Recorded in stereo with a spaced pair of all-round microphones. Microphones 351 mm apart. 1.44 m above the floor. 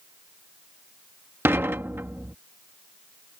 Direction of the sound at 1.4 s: 5° right (ahead or behind).